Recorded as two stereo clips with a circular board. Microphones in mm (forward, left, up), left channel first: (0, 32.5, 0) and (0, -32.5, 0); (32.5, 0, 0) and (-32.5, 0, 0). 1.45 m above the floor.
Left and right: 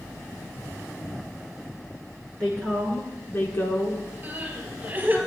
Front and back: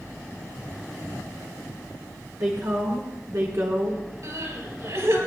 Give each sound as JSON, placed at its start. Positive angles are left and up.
{"t": 2.4, "sound": "a woman speaking", "azimuth_deg": 160, "distance_m": 1.7}
{"t": 4.2, "sound": "crying", "azimuth_deg": -150, "distance_m": 4.0}